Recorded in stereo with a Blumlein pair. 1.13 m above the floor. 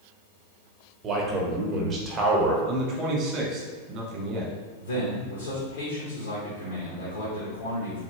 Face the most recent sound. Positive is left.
turn(degrees=65)